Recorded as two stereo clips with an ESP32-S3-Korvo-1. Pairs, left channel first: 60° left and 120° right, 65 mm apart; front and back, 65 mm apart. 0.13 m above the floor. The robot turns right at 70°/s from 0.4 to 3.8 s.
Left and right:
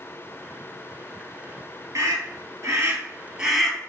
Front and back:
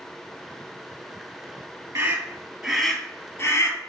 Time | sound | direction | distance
1.9 | a scream | 145° right | 3.5 m